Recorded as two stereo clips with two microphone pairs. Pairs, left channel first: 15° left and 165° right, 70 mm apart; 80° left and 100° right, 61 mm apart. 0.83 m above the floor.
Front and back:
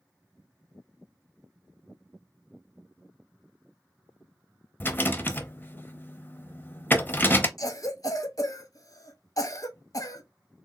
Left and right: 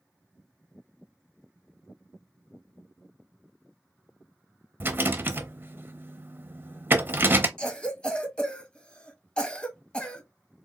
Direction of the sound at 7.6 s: 10° left.